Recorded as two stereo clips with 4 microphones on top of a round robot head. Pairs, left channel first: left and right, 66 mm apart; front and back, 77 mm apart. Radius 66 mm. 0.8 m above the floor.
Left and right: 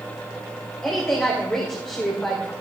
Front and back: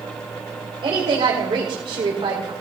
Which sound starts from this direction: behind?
A woman speaking, at 0.8 s.